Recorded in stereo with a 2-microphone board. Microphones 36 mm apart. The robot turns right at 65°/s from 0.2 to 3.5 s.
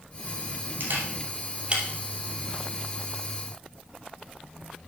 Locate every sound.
0.8 s a camera shutter: 65° right (ahead or behind), 3 m; by 1.8 s 30° right (ahead or behind), 3 m